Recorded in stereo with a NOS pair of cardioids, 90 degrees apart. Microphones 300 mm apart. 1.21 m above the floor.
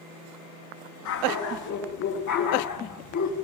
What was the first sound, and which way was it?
A dog barking, 65° left.